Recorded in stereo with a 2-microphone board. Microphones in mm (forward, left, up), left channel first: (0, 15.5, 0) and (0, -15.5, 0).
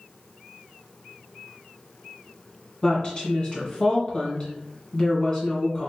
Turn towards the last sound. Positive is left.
turn(degrees=30)  # may be behind; listen again after turning